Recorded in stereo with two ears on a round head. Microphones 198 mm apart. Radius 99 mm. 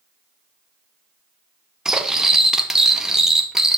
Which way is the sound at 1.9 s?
5° right (ahead or behind).